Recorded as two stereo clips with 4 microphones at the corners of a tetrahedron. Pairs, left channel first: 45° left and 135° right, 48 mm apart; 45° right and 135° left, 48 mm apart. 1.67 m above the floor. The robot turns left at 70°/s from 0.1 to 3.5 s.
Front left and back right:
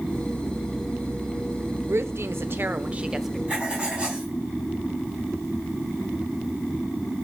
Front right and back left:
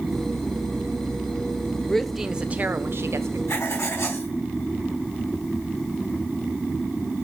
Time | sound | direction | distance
1.9 | a woman speaking | 120° right | 0.8 m
3.5 | writing | 65° right | 4 m